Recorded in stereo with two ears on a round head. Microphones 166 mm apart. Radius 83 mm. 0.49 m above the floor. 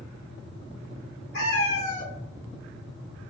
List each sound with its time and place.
1.3 s a cat meowing: 75° left (ahead or behind), 1.7 m